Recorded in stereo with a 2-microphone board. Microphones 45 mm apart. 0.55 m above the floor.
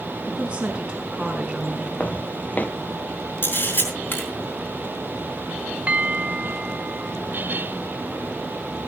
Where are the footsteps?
35° left (ahead or behind), 0.7 m.